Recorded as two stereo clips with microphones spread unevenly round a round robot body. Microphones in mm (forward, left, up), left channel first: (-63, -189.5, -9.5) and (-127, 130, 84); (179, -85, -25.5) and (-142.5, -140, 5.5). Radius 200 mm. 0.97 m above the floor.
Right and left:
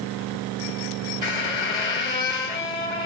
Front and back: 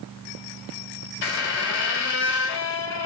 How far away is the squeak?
About 1.7 m.